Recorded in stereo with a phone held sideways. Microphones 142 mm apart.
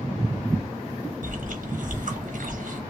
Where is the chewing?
70° right (ahead or behind), 1.2 m.